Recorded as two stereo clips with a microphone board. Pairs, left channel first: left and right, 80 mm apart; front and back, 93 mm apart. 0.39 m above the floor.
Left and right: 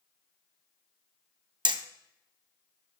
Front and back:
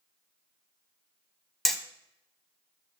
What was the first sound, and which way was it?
Hammering, 90° right.